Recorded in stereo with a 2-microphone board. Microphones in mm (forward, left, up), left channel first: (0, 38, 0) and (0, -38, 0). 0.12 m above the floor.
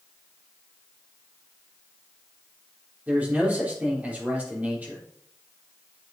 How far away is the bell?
No bell in this recording.